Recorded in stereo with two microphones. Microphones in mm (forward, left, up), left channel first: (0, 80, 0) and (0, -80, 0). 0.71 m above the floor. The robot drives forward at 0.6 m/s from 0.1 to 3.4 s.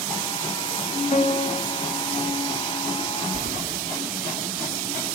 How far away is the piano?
About 0.9 m.